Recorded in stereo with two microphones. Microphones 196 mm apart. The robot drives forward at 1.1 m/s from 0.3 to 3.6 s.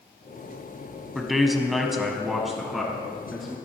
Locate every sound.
1.1 s a man speaking: centre (ahead or behind), 1.3 m